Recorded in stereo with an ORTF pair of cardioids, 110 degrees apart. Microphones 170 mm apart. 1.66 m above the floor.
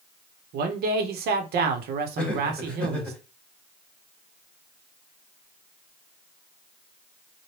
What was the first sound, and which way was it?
A man speaking, 70° right.